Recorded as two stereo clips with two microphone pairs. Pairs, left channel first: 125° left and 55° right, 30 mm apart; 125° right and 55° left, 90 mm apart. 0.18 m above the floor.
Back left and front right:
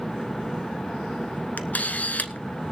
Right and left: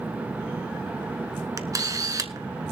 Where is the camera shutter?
100° left, 0.9 m.